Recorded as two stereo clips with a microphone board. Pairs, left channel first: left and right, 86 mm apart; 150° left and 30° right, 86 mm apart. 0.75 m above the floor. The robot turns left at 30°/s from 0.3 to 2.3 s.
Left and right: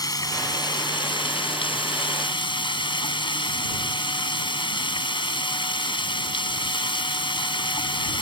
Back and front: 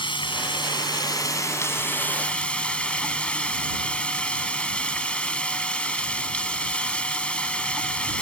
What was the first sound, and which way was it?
Running water, 135° left.